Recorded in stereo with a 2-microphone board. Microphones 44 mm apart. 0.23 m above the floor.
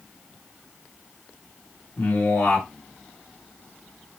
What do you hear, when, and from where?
2.0 s a man speaking: 60° left (ahead or behind), 2.5 m